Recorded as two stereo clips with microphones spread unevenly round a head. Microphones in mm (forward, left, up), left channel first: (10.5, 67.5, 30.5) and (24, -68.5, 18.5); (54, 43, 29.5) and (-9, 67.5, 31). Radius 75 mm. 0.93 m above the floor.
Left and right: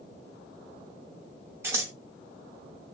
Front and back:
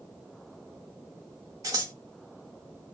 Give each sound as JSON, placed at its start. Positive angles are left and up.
{"t": 1.6, "sound": "scissors", "azimuth_deg": -160, "distance_m": 0.6}